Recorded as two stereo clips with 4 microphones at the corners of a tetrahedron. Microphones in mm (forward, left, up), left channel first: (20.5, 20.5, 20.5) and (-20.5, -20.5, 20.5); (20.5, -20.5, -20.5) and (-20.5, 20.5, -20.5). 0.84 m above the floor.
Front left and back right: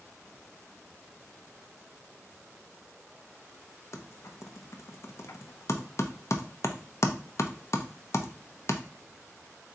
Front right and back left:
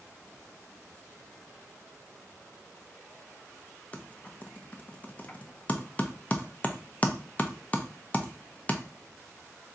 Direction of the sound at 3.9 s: 20° left.